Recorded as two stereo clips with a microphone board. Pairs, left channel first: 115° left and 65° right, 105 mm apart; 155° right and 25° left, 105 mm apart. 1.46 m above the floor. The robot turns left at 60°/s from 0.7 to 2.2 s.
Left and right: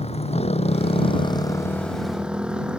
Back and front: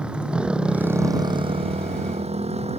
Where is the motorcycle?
105° left; by 2.8 s 15° left.